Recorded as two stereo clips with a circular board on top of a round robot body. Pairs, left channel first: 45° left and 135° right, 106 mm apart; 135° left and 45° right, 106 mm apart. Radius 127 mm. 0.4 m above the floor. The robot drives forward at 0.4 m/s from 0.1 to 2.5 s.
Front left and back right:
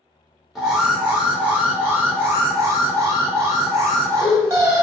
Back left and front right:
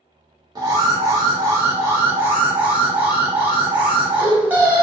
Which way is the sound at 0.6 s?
50° right.